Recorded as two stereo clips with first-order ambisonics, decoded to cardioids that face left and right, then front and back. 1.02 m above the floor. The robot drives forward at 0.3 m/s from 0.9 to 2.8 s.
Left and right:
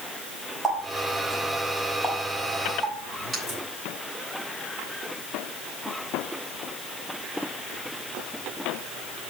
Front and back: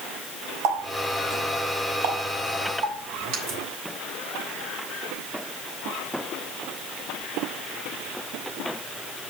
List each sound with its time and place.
0.6 s a running tap: 175° right, 4.5 m